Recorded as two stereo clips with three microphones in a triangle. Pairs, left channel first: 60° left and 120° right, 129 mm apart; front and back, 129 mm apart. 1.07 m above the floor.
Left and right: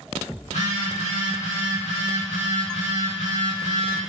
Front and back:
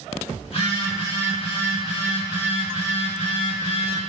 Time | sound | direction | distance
0.4 | a phone buzzing | 40° left | 1.0 m